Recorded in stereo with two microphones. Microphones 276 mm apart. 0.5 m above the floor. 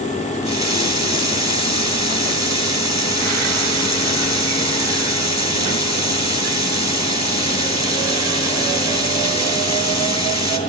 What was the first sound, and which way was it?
A running tap, 75° left (ahead or behind).